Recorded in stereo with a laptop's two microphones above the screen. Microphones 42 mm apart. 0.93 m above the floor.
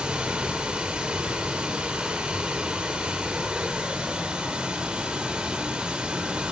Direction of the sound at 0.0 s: 20° right (ahead or behind).